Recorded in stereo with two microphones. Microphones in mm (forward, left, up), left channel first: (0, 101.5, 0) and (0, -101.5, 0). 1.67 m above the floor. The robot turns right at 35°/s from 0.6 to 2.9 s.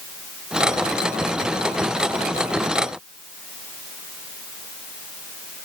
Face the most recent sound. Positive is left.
No sound to turn to.